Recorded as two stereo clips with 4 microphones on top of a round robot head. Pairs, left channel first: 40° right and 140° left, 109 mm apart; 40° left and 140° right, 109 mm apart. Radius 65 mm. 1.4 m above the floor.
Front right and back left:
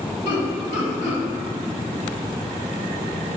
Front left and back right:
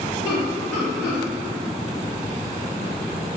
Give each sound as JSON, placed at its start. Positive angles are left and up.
{"t": 0.2, "sound": "laughter", "azimuth_deg": -40, "distance_m": 1.4}